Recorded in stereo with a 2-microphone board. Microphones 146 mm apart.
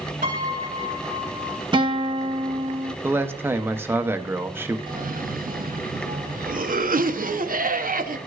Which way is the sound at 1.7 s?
30° right (ahead or behind).